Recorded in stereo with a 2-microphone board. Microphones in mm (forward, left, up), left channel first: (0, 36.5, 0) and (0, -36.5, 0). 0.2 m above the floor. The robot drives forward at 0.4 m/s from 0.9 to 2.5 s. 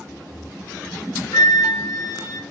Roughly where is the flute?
Left.